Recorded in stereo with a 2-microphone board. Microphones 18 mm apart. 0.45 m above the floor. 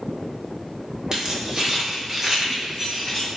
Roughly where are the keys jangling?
Right.